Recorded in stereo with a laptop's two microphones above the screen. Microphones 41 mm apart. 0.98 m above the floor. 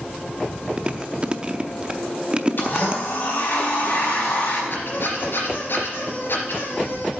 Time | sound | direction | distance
0.8 | chewing | 30° right (ahead or behind) | 0.6 m
2.6 | a blender | 50° left (ahead or behind) | 4.5 m
4.7 | a squeak | 60° left (ahead or behind) | 3 m